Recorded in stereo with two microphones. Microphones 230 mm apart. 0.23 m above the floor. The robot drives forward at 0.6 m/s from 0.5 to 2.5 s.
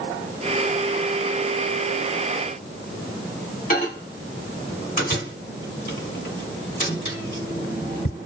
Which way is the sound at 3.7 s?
40° left (ahead or behind).